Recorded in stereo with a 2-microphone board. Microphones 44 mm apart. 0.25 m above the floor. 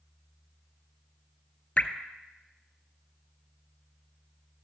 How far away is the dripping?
About 0.7 m.